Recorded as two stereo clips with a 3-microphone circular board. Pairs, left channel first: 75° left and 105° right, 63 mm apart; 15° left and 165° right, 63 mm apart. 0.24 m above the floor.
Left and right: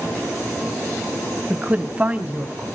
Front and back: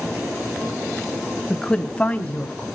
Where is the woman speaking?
55° right, 1.2 m; by 2.7 s 45° right, 1.8 m.